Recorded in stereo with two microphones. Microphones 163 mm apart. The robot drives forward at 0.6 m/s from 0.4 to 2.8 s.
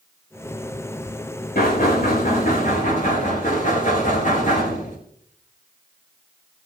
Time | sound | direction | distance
1.6 | knocking | 60° left (ahead or behind) | 3.5 m